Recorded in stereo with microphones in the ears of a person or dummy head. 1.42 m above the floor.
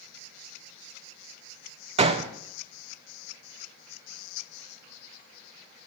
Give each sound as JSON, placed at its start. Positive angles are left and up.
{"t": 2.0, "sound": "a gunshot", "side_deg": -35, "distance_m": 0.7}